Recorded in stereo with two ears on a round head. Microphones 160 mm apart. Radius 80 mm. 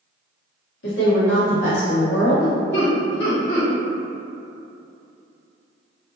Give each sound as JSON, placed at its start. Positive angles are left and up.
{"t": 0.8, "sound": "a woman speaking", "side_deg": 80, "distance_m": 1.2}
{"t": 2.7, "sound": "laughter", "side_deg": 65, "distance_m": 1.6}